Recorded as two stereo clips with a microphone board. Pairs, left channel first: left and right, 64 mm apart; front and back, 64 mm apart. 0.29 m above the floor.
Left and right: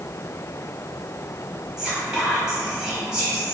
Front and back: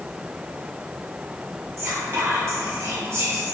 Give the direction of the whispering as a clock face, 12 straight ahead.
6 o'clock.